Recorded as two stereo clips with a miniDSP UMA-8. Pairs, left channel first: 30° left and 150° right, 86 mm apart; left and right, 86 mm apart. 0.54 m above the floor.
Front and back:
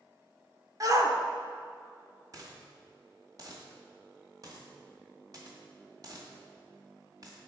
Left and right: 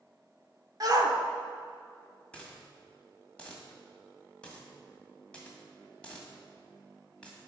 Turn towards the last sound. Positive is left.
turn(degrees=165)